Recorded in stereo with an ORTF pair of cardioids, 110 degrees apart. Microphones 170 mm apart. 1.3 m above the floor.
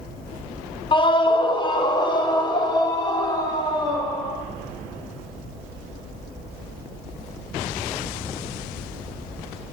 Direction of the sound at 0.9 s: 30° left.